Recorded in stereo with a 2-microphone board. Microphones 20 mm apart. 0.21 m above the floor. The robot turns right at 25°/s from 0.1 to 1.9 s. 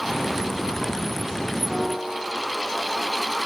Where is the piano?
15° right (ahead or behind), 1.7 m; by 2.3 s 10° right (ahead or behind), 1.7 m.